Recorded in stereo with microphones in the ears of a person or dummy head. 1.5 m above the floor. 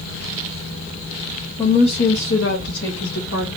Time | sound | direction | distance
1.6 | a woman speaking | 20° left (ahead or behind) | 0.7 m